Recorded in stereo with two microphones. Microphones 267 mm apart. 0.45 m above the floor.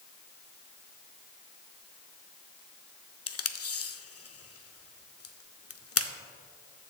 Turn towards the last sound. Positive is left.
turn(degrees=60)  # may be behind; listen again after turning